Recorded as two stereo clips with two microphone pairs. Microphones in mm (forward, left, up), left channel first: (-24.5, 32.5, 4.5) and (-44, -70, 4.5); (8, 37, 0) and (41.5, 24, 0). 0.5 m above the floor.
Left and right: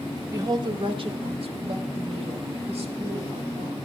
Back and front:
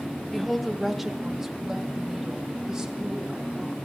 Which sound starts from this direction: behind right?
A woman speaking, at 0.3 s.